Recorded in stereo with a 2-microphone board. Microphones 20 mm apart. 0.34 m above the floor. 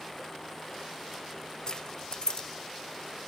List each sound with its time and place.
1.7 s keys jangling: 45° left (ahead or behind), 1.1 m